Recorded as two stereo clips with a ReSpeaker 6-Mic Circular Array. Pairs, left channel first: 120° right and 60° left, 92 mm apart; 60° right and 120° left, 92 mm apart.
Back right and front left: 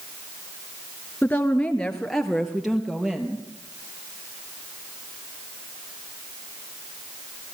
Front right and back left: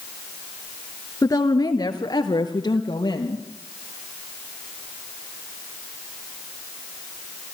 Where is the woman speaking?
60° right, 1.6 m; by 3.4 s 20° right, 3 m.